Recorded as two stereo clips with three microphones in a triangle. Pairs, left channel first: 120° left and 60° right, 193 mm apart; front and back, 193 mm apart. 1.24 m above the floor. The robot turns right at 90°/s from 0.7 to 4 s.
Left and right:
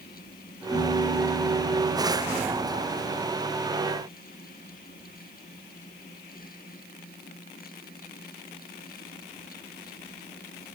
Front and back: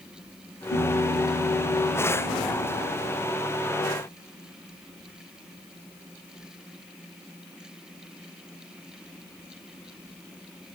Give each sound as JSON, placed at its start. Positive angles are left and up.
{"t": 0.7, "sound": "a piano", "azimuth_deg": 10, "distance_m": 10.0}